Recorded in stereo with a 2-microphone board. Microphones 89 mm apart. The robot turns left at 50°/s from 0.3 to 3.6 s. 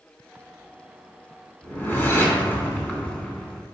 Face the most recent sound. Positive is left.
turn(degrees=5)  # may be behind; listen again after turning